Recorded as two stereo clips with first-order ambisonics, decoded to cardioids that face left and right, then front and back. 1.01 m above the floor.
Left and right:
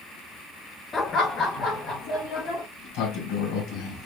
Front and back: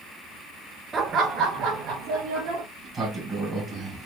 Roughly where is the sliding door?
Left.